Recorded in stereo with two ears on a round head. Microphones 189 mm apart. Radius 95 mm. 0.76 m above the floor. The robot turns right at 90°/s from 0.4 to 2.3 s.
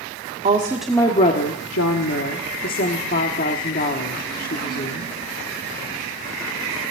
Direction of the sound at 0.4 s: 35° right.